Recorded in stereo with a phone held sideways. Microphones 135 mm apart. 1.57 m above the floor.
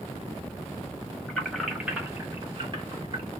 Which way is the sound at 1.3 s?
10° left (ahead or behind).